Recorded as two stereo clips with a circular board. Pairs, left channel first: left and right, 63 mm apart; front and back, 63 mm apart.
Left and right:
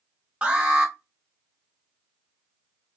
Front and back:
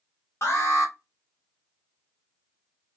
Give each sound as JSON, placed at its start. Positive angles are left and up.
{"t": 0.4, "sound": "an alarm", "azimuth_deg": -25, "distance_m": 1.3}